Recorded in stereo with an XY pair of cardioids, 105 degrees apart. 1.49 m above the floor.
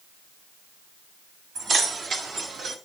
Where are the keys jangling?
65° right, 2 m; by 2.8 s 60° right, 1.6 m.